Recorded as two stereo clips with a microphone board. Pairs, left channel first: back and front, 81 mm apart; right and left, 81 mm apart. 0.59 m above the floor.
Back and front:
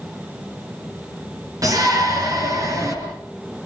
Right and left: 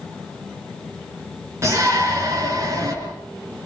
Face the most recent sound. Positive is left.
turn(degrees=45)